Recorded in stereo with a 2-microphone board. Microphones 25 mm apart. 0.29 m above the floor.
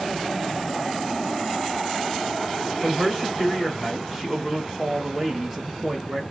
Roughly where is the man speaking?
Centre.